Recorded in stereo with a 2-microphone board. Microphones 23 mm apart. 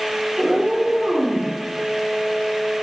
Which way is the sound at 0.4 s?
60° right (ahead or behind).